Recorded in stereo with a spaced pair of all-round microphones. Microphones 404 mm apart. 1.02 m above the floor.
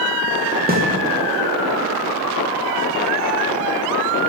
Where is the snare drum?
20° right (ahead or behind), 0.9 m.